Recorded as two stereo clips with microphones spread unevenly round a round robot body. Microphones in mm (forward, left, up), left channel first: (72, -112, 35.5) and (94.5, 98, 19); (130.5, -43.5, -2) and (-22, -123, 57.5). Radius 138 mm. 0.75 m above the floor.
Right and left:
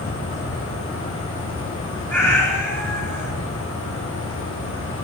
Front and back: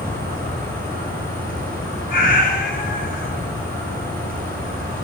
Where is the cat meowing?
15° right, 5.5 m.